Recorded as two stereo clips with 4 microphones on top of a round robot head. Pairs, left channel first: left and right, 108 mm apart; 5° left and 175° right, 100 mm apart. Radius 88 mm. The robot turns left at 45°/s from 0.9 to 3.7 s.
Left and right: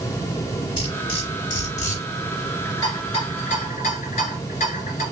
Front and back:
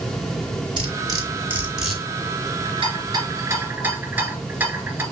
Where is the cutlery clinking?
145° left, 3 m; by 2.0 s 95° left, 3 m.